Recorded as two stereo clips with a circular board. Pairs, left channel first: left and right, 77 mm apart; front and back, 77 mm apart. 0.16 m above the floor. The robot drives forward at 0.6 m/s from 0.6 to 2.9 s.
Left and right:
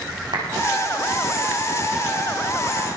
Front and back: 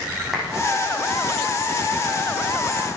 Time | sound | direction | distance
0.3 | a clap | 90° right | 9.5 m